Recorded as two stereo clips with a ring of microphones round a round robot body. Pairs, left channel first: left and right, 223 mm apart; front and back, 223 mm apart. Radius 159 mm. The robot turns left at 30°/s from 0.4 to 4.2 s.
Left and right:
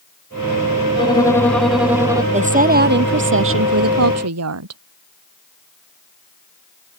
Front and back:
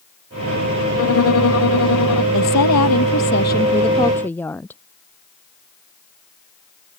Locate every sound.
1.0 s a violin: 20° left; by 2.2 s 15° right
2.3 s a woman speaking: 30° right; by 4.8 s 85° right